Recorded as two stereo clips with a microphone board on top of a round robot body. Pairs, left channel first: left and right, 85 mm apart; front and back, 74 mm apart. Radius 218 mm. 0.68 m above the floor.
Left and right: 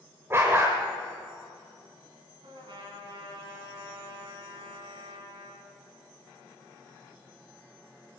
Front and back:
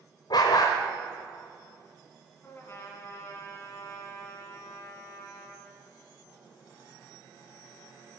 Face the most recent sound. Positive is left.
turn(degrees=-60)